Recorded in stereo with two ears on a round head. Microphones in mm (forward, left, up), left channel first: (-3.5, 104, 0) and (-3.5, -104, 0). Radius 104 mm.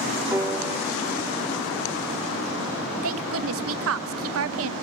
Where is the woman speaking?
65° right (ahead or behind), 1.3 m.